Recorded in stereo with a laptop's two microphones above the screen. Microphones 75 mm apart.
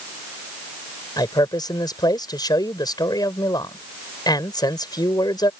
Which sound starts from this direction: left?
A man speaking, at 1.2 s.